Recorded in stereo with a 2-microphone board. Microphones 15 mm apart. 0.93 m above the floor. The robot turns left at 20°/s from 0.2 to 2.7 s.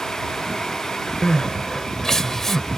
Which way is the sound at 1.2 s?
50° left (ahead or behind).